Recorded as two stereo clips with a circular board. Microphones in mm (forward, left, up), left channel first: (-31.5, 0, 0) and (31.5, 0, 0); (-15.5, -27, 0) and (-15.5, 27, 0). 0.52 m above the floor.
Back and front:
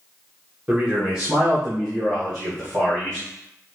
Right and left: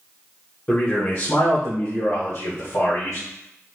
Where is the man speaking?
50° right, 0.9 m; by 3.2 s 105° right, 2.5 m.